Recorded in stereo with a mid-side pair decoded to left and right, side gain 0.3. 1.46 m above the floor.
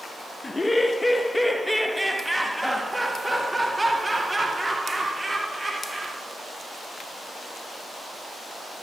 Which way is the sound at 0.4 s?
30° left.